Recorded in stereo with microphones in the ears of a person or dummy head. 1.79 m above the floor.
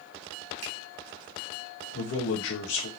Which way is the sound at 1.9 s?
75° left (ahead or behind).